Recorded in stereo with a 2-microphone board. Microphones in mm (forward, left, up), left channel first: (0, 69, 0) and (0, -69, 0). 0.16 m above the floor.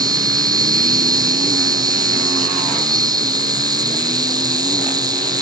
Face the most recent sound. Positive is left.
turn(degrees=-30)  # may be behind; listen again after turning